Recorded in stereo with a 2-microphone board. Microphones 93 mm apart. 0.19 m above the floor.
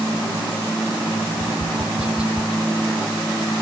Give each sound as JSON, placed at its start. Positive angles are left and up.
{"t": 1.3, "sound": "tapping", "side_deg": -10}